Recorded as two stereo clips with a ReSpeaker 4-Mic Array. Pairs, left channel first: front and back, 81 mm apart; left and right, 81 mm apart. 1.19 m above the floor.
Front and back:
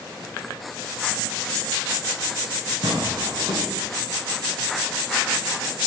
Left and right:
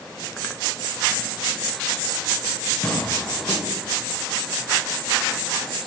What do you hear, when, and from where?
2.8 s tearing paper: 165° left, 3 m